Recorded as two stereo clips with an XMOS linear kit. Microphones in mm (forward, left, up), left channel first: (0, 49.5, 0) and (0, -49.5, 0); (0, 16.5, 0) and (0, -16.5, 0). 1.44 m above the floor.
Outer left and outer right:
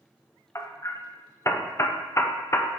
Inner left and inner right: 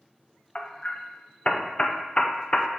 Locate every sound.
0.6 s hammering: 30° left (ahead or behind), 0.6 m